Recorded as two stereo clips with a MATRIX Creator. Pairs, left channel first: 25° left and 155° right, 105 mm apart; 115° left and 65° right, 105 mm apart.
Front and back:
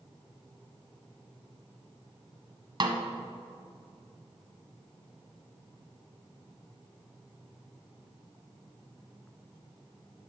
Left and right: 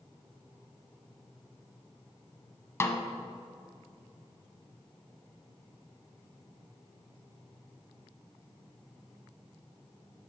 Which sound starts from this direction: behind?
A snare drum, at 2.8 s.